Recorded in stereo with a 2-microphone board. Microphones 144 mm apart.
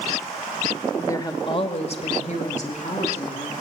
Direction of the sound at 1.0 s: 15° left (ahead or behind).